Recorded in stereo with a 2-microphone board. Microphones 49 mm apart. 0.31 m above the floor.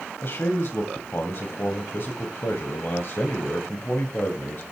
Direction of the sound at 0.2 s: 50° left (ahead or behind).